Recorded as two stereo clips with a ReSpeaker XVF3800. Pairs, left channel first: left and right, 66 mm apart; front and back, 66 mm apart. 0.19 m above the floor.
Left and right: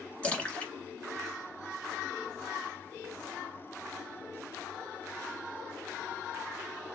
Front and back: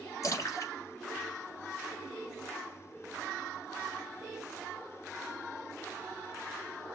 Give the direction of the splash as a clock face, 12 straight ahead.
11 o'clock.